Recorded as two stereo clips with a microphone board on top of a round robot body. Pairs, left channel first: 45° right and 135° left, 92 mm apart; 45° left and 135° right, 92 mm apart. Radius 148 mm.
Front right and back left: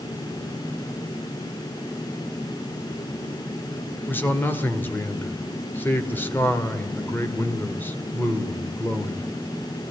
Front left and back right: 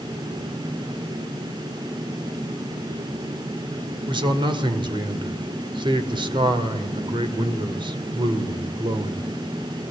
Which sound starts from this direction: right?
A man speaking, at 4.1 s.